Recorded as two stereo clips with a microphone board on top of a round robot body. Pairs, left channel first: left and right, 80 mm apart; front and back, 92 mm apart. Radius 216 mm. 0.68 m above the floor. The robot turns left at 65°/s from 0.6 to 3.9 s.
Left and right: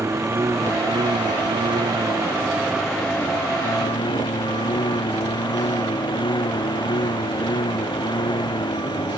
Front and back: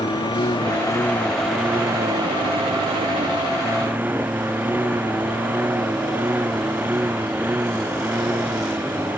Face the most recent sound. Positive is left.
turn(degrees=110)